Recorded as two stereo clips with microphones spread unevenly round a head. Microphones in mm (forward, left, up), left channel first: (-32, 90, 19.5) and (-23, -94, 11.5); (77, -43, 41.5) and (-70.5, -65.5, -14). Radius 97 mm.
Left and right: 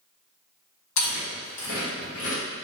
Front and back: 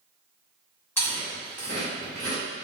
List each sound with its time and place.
1.0 s chewing: 95° left, 1.0 m